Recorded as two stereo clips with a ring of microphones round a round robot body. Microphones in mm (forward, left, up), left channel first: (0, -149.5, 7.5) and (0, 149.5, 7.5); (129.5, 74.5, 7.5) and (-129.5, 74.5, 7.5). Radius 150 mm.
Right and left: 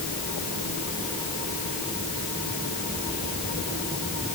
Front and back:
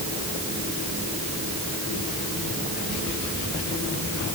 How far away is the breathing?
I don't hear breathing.